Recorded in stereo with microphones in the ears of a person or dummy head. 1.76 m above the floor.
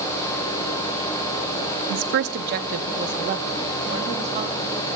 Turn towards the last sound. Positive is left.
turn(degrees=-35)  # may be behind; listen again after turning